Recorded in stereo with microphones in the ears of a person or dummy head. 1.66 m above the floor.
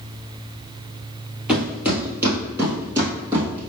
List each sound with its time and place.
1.5 s footsteps: 5° right (ahead or behind), 2 m; by 3.7 s 25° right (ahead or behind), 3 m